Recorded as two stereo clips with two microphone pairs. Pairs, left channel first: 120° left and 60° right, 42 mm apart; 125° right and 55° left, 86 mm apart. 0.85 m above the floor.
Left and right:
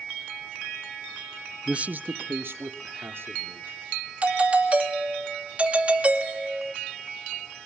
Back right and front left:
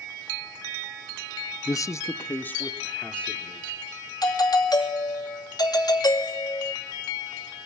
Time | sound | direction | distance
1.7 | a man speaking | 120° right | 0.6 m
4.2 | a doorbell | 110° right | 2 m